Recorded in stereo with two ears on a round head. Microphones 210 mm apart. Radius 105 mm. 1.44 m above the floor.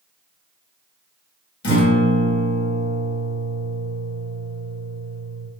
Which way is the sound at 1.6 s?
50° left (ahead or behind).